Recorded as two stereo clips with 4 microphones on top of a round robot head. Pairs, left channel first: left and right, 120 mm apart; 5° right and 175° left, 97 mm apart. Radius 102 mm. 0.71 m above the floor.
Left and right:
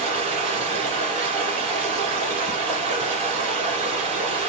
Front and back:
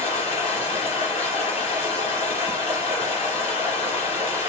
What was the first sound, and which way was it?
Running water, 35° right.